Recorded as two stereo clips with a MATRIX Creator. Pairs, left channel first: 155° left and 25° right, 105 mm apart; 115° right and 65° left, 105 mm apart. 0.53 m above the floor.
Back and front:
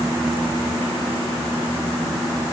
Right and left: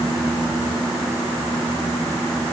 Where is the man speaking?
I don't hear a man speaking.